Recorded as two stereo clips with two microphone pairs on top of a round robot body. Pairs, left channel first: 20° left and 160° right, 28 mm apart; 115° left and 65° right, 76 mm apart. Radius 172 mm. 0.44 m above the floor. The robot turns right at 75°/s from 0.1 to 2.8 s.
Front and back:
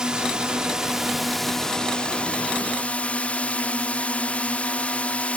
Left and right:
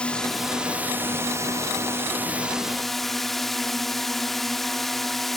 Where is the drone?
175° right; by 5.4 s 30° left.